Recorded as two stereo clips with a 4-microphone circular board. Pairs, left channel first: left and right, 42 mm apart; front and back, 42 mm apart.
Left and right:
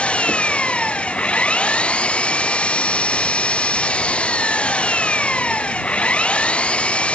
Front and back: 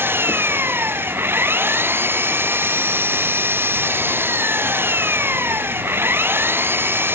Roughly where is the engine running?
Behind left.